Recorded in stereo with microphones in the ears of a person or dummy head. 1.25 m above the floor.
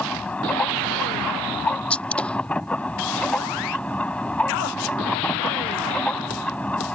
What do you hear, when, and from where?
0.0 s a machine running: 5° left (ahead or behind)
1.9 s a gunshot: 10° left (ahead or behind)